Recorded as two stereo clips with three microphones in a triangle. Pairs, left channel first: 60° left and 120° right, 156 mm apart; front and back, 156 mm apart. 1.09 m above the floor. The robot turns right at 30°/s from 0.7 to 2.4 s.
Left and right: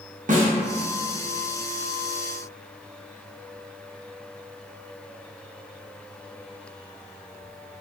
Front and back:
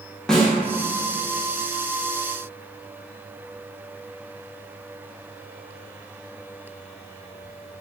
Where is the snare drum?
85° right, 0.6 m.